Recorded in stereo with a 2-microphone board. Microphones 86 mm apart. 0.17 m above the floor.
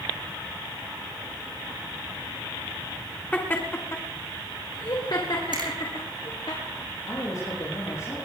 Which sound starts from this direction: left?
A man speaking, at 7.0 s.